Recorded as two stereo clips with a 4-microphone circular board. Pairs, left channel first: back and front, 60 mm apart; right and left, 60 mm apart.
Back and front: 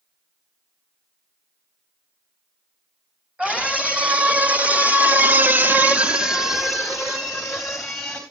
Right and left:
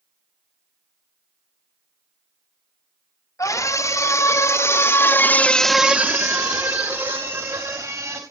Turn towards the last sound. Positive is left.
turn(degrees=95)